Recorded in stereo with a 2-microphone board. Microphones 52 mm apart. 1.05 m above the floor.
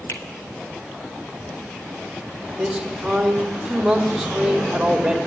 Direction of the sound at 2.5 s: 10° right (ahead or behind).